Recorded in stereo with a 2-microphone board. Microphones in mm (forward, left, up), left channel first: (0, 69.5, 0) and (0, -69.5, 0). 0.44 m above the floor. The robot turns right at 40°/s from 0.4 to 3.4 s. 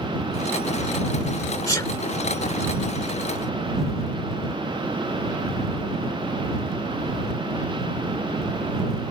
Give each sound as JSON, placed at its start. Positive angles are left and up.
{"t": 1.7, "sound": "a sneeze", "side_deg": 25}